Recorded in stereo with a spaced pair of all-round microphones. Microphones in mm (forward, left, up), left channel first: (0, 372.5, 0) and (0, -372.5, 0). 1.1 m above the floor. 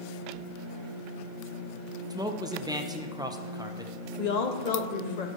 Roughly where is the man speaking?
Centre.